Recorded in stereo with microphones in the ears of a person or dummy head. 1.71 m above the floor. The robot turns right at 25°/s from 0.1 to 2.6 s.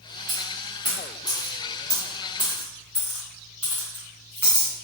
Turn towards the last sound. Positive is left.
turn(degrees=-5)  # may be behind; listen again after turning